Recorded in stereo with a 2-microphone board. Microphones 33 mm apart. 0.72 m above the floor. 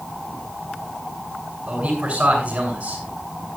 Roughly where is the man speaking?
Right.